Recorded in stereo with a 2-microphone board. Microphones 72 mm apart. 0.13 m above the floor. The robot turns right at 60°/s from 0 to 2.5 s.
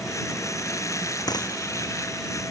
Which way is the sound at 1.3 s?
60° left (ahead or behind).